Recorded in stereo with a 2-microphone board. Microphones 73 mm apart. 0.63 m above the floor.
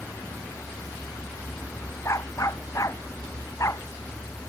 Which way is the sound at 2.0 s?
45° left (ahead or behind).